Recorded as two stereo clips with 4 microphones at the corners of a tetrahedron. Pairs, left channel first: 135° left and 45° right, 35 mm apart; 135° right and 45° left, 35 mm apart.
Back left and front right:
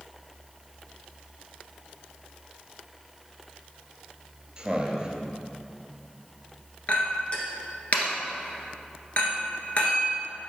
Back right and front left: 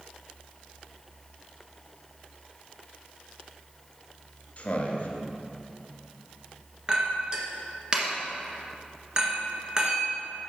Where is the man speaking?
110° right, 1.7 m.